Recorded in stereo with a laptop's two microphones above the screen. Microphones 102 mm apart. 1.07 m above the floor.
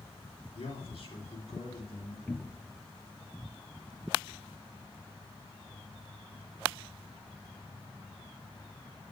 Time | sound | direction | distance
0.6 | a man speaking | 65° left (ahead or behind) | 3 m
2.3 | a cupboard door | 15° left (ahead or behind) | 0.5 m